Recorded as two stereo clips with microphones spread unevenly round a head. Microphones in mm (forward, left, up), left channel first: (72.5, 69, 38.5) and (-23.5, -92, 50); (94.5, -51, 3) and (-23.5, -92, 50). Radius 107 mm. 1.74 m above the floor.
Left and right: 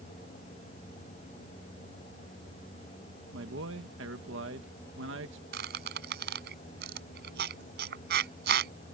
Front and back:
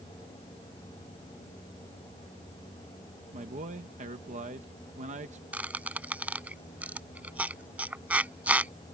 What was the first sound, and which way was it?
A man speaking, 150° right.